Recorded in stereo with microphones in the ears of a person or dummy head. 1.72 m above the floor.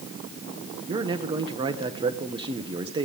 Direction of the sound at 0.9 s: 30° right (ahead or behind).